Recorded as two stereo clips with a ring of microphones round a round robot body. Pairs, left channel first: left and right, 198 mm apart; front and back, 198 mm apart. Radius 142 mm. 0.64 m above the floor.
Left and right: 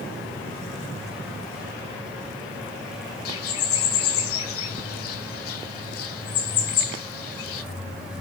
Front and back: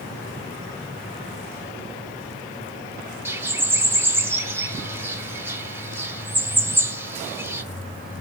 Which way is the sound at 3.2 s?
100° left.